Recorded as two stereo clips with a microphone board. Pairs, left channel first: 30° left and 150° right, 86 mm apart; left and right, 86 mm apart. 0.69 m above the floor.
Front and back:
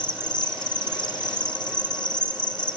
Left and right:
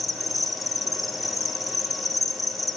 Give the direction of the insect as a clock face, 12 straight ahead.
12 o'clock.